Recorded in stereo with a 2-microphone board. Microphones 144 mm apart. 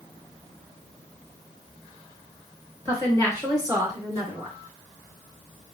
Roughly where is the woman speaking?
Right.